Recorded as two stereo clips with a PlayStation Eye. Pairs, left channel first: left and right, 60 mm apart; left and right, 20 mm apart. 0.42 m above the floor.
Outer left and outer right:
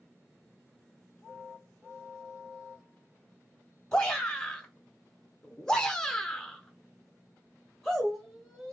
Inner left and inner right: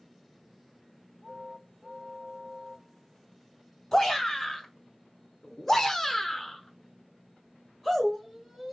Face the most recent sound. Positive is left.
turn(degrees=-5)  # may be behind; listen again after turning